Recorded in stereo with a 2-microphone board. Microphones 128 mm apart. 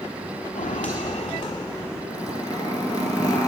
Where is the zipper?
30° left (ahead or behind), 2 m.